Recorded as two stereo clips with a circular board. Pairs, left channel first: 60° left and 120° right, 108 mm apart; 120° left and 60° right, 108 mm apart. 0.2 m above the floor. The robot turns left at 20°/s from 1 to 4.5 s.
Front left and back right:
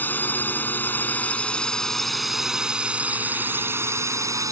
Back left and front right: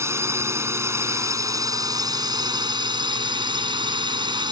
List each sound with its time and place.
0.0 s a drone: 5° right; by 4.5 s 75° right